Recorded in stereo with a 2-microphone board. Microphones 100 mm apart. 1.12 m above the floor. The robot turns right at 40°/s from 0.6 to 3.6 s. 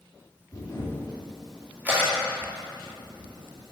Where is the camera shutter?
30° left (ahead or behind), 1.9 m; by 3.7 s 90° right, 1.9 m.